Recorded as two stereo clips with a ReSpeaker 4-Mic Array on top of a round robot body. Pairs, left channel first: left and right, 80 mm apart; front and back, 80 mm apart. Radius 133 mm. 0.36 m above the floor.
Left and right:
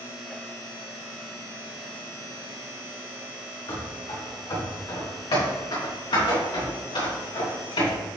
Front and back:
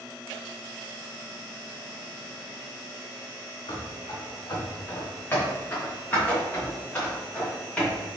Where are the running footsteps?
45° left, 2.5 m; by 8.0 s 75° left, 5 m.